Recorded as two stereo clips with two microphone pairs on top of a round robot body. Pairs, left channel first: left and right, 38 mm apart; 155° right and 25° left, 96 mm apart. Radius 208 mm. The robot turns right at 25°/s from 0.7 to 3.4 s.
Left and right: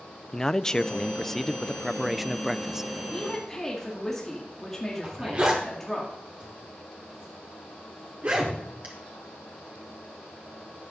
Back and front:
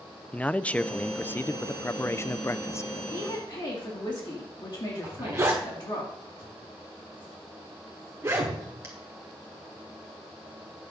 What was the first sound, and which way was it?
A man speaking, 150° left.